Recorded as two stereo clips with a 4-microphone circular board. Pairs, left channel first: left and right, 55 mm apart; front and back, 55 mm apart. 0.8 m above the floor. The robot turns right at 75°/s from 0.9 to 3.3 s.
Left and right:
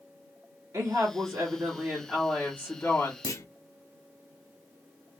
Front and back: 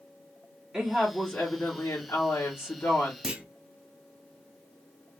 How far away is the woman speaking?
About 1.6 m.